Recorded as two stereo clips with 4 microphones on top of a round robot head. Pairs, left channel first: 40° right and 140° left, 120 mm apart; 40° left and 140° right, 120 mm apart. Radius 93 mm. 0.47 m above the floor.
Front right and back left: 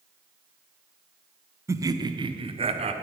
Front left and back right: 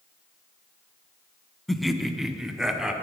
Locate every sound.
1.7 s laughter: 125° left, 1.0 m; by 2.9 s 135° left, 1.5 m